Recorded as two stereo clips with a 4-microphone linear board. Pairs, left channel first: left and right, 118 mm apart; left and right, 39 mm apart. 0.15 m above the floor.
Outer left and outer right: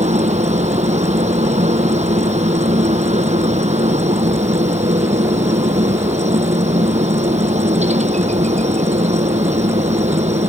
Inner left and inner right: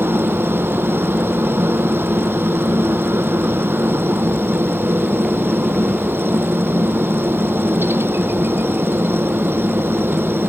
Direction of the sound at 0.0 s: 75° right (ahead or behind).